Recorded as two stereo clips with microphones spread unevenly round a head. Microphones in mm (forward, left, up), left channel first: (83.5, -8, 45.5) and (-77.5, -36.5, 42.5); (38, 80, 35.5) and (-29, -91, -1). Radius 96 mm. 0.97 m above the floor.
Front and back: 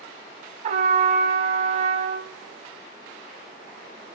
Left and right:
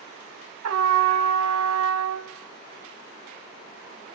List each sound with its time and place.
0.6 s a trumpet: 125° right, 1.5 m